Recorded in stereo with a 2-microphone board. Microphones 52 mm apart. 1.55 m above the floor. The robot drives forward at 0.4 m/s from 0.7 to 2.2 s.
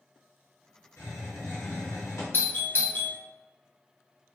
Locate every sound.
1.0 s a hiss: 65° left (ahead or behind), 1.4 m; by 2.2 s 85° left, 1.3 m
2.3 s a doorbell: 40° left (ahead or behind), 0.6 m